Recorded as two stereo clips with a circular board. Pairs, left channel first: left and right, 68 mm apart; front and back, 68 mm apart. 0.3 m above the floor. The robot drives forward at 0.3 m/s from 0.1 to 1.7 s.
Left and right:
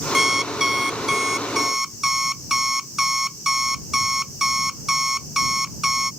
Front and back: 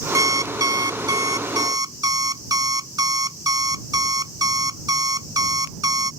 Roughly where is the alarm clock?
Behind.